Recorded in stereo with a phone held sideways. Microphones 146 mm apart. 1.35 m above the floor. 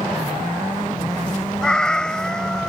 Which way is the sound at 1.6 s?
5° left (ahead or behind).